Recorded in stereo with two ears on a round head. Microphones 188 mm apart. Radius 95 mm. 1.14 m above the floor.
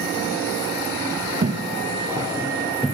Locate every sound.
1.4 s footsteps: 40° right (ahead or behind), 1.4 m; by 3.0 s 5° left (ahead or behind), 1.1 m